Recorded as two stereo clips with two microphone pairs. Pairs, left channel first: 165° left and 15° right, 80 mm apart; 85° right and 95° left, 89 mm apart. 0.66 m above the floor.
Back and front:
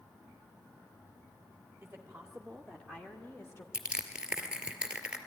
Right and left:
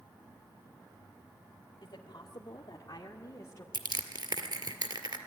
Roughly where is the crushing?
Ahead left.